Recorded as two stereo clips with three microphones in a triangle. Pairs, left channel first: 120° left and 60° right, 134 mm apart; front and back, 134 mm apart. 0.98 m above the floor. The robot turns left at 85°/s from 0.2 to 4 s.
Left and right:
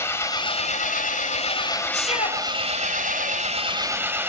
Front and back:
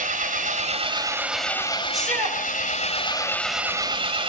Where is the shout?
95° left, 6 m; by 2.4 s 55° left, 6 m.